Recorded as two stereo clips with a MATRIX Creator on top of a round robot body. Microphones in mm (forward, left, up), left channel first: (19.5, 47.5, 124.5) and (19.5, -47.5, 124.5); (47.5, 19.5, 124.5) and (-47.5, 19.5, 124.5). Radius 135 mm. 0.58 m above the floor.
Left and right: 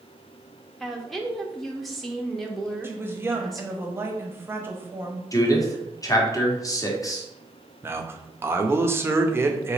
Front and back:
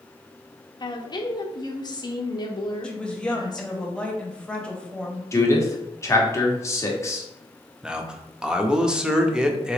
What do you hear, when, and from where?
0.8 s a woman speaking: 5° left, 0.8 m
2.8 s a woman speaking: 65° right, 1.1 m
5.3 s a man speaking: 50° left, 1.3 m
7.8 s a man speaking: 110° right, 0.8 m